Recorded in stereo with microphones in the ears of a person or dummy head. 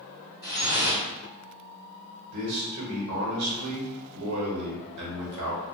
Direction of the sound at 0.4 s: 5° left (ahead or behind).